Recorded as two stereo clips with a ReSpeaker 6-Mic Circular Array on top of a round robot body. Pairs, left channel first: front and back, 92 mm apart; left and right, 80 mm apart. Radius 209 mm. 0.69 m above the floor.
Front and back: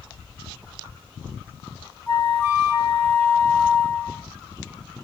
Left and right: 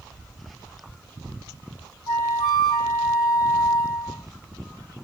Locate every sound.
2.1 s a flute: 60° left, 1.2 m